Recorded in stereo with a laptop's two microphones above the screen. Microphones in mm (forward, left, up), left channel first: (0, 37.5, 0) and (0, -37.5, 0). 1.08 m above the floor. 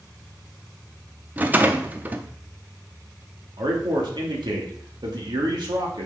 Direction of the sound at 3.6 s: 80° right.